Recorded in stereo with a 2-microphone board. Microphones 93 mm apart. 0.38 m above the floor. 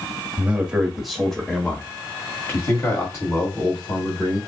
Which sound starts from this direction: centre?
A man speaking, at 0.4 s.